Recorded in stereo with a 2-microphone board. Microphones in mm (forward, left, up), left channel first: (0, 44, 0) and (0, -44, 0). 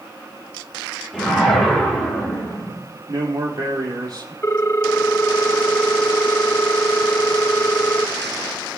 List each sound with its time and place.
1.1 s a whoosh: 10° left (ahead or behind), 8 m
3.1 s a man speaking: 50° right (ahead or behind), 4.5 m
4.4 s a ringtone: 25° left (ahead or behind), 0.5 m